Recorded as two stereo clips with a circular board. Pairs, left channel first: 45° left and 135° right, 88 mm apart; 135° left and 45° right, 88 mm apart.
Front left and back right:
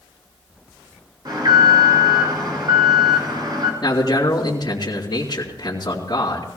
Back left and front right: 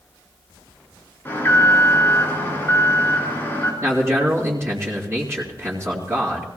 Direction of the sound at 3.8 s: 10° left.